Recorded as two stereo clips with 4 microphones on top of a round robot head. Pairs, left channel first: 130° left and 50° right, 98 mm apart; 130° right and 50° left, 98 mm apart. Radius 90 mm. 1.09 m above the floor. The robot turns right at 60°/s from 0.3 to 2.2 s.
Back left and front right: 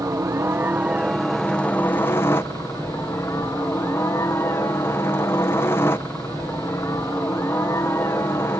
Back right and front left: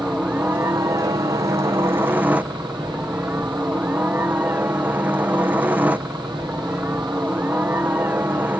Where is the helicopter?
15° right; by 8.6 s 100° left.